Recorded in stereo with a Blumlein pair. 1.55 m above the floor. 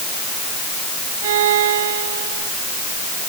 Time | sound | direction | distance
1.2 | a violin | 55° right | ?